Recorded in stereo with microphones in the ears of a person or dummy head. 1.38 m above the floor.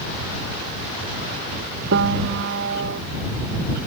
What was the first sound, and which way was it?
A piano, 65° right (ahead or behind).